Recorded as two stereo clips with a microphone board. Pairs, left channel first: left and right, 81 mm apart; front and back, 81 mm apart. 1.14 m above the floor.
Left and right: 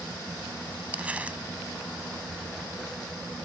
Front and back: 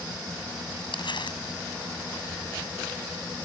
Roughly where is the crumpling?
Ahead.